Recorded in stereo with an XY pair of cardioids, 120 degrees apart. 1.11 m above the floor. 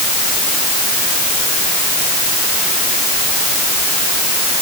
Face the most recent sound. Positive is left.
No sound to turn to.